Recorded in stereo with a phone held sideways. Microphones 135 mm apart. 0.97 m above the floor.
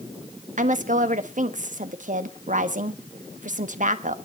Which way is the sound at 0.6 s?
65° right (ahead or behind).